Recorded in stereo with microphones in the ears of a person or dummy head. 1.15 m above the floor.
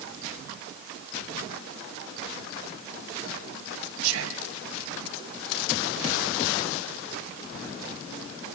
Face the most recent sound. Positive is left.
turn(degrees=-70)  # may be behind; listen again after turning